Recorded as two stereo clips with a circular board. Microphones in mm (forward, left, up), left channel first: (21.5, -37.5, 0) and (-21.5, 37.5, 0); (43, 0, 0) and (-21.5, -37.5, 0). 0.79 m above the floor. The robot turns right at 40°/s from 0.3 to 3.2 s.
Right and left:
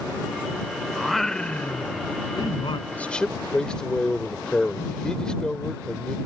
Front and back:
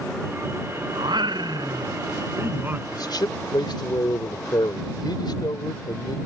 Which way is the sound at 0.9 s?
155° right.